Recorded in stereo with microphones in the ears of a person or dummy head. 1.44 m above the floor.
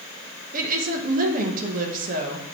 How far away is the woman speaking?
About 1.6 m.